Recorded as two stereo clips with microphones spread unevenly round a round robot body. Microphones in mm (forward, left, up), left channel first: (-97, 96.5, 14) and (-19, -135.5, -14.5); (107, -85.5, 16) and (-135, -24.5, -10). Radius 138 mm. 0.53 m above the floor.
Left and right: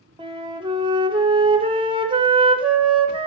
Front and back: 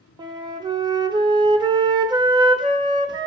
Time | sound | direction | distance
0.2 | a flute | 130° right | 0.7 m